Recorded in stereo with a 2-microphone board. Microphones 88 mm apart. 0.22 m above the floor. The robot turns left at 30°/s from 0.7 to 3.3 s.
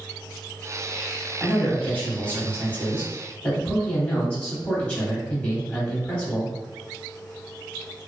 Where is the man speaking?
15° left (ahead or behind), 1.0 m.